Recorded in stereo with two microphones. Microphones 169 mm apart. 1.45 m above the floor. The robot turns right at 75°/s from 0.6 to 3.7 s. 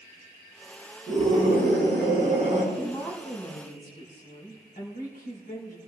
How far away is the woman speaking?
About 5 m.